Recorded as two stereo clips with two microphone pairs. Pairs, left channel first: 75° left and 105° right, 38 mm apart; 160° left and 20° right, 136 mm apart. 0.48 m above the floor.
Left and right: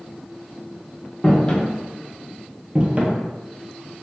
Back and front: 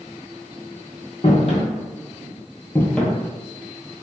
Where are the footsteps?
135° left, 0.8 m; by 3.2 s 110° right, 0.6 m.